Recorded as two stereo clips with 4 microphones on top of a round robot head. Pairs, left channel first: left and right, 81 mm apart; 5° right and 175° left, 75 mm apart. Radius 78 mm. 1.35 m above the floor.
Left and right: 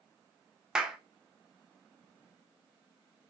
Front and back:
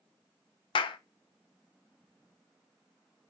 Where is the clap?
5° right, 1.0 m.